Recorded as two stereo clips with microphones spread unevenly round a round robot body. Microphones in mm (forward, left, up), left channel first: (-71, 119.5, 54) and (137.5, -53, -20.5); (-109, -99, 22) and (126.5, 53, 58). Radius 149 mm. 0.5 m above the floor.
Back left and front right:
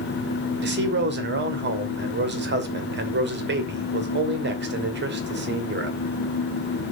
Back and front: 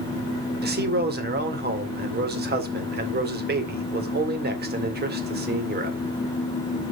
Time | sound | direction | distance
0.6 | a man speaking | 20° right | 2 m